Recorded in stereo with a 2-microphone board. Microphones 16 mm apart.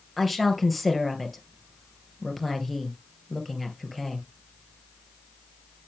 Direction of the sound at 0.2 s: 5° left (ahead or behind).